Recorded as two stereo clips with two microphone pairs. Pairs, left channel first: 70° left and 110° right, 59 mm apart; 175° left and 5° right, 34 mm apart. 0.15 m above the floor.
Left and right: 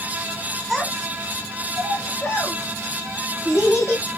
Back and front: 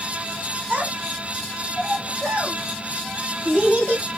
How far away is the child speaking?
About 1.2 m.